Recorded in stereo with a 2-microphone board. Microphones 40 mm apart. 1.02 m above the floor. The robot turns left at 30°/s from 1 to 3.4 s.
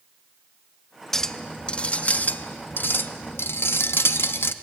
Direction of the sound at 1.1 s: 170° left.